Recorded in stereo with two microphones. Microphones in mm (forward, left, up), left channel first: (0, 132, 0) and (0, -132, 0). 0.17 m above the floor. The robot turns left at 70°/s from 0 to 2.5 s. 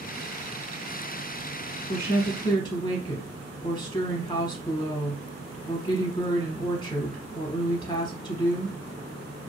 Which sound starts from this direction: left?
A woman speaking, at 1.9 s.